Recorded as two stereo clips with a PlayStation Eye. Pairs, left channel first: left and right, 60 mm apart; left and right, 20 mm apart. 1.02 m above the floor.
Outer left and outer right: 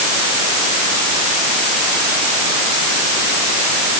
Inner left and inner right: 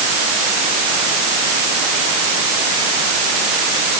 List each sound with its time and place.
Only background noise.